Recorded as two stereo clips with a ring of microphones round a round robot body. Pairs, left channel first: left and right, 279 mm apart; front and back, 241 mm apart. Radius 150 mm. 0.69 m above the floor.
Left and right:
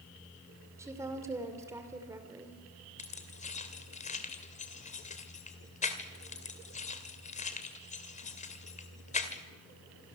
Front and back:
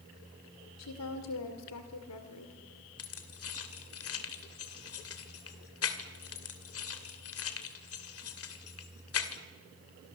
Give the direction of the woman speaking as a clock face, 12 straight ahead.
12 o'clock.